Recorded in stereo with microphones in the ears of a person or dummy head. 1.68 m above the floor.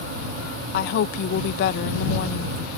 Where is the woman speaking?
60° left (ahead or behind).